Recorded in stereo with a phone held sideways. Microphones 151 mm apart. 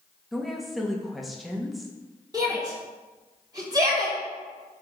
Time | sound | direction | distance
0.3 | a woman speaking | centre (ahead or behind) | 1.6 m
2.3 | a shout | 25° right (ahead or behind) | 3.5 m